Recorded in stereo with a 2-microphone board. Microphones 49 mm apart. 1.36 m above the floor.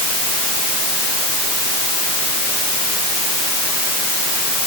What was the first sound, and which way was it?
Only background noise.